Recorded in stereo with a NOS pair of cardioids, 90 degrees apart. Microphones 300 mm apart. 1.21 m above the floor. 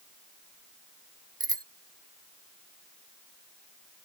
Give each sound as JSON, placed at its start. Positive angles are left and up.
{"t": 1.4, "sound": "a bicycle bell", "azimuth_deg": -15}